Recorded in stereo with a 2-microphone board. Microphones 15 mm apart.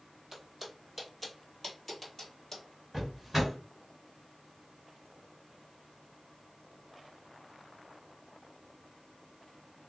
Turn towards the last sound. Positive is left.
turn(degrees=-10)  # may be behind; listen again after turning